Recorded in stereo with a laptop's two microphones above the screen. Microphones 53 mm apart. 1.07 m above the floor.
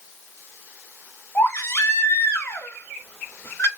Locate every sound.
1.4 s a baby crying: 45° left (ahead or behind), 0.8 m